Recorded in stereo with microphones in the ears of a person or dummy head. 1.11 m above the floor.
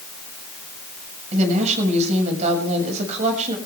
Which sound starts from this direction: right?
A woman speaking, at 1.3 s.